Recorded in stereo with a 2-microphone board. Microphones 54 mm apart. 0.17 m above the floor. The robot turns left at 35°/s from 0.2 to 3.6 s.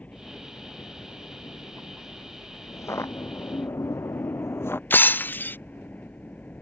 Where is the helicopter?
25° left (ahead or behind); by 6.6 s 30° left (ahead or behind).